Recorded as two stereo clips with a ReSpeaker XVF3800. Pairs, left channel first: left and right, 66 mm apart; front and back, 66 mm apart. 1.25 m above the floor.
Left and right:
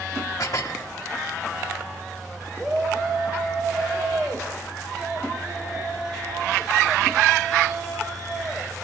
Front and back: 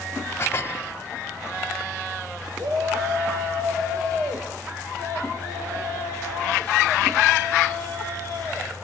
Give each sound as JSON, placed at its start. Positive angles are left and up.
{"t": 0.4, "sound": "dishes clattering", "azimuth_deg": 50, "distance_m": 1.9}
{"t": 2.6, "sound": "a shout", "azimuth_deg": -175, "distance_m": 6.0}